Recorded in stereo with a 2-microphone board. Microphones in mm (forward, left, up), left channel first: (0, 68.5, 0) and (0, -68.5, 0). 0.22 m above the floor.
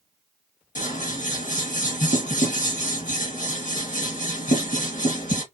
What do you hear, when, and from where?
0.8 s scissors: 65° left (ahead or behind), 2 m